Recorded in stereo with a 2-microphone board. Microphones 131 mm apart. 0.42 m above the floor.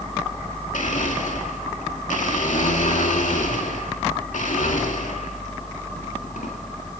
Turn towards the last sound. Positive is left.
turn(degrees=80)